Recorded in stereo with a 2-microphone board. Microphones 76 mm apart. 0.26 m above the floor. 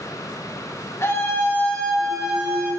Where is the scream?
35° left (ahead or behind), 1.3 m; by 2.7 s 20° right (ahead or behind), 1.2 m.